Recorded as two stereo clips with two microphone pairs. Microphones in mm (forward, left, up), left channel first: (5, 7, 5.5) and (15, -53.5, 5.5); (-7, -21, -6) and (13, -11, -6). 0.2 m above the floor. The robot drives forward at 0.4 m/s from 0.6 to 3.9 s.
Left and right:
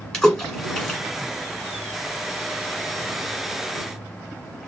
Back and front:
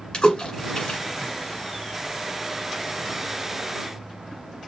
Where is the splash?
Straight behind, 1.9 m.